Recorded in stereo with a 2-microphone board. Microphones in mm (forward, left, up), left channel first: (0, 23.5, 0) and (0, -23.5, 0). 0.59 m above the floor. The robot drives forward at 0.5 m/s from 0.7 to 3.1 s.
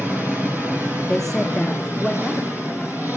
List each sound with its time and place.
0.0 s an engine running: 45° right (ahead or behind), 6 m; by 3.2 s 40° right (ahead or behind), 7 m
1.1 s a woman speaking: 10° left (ahead or behind), 0.6 m; by 3.2 s 5° left (ahead or behind), 1.5 m